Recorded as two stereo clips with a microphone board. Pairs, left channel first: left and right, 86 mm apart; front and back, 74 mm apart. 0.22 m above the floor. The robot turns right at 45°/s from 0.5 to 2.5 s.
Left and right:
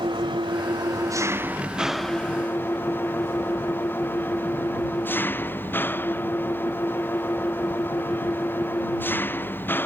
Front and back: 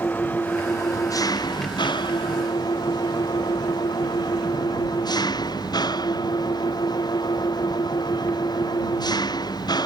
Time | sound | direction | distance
0.0 | an engine running | 65° right | ?